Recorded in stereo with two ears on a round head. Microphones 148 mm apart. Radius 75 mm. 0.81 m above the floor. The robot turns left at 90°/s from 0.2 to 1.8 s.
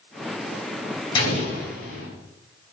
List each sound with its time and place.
1.1 s an explosion: 150° left, 3.5 m; by 2.1 s 90° left, 3.5 m